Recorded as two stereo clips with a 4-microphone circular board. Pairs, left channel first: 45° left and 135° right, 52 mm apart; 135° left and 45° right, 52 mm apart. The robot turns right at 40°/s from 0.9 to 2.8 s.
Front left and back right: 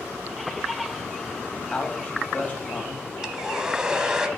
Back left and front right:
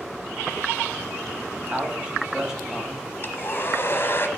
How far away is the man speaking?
About 1.2 m.